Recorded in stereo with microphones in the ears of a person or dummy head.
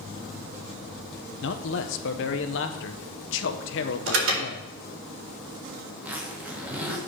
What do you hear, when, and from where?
1.4 s a man speaking: 60° left (ahead or behind), 0.9 m
4.1 s an alarm: 80° right, 4 m
5.9 s a zipper: 10° right (ahead or behind), 1.5 m